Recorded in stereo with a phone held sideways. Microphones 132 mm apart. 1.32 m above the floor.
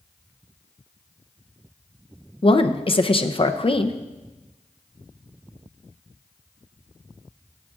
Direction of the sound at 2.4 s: 40° left (ahead or behind).